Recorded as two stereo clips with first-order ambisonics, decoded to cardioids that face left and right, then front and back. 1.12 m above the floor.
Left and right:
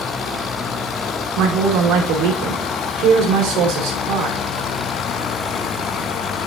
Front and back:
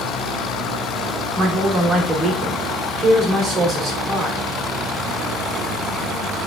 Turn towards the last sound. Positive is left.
turn(degrees=-115)